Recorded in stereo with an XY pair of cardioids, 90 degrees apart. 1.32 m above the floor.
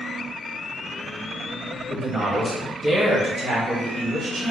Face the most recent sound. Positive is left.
turn(degrees=-50)